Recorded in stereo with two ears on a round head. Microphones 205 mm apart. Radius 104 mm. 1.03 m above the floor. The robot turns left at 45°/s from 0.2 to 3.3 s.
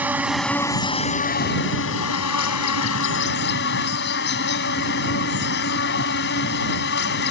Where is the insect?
170° right; by 7.3 s 50° left.